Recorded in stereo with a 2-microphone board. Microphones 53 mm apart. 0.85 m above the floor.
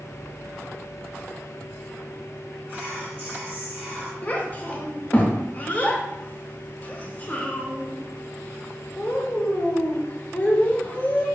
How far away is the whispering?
About 1.6 m.